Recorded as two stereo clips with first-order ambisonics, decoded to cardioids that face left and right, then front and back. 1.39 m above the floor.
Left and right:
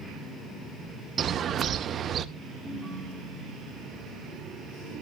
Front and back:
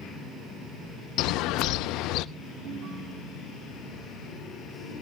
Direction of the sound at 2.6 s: 175° right.